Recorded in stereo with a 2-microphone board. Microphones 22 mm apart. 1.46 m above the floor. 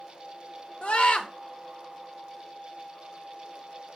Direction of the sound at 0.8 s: 70° left (ahead or behind).